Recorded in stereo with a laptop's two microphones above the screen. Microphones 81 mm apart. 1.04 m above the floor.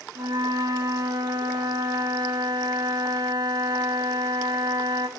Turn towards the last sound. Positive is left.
turn(degrees=-60)  # may be behind; listen again after turning